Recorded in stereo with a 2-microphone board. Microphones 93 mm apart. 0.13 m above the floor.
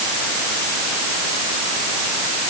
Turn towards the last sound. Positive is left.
No sound to turn to.